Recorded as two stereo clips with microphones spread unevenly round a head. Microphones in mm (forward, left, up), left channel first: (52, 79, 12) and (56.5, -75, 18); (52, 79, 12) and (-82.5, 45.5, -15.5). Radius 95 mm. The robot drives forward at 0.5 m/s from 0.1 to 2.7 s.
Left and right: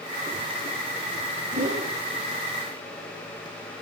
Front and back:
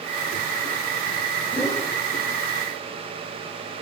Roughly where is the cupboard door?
No cupboard door in this recording.